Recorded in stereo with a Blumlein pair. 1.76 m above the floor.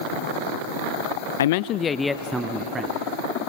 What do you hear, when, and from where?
1.4 s a man speaking: 65° left, 0.5 m; by 3.0 s 20° right, 1.2 m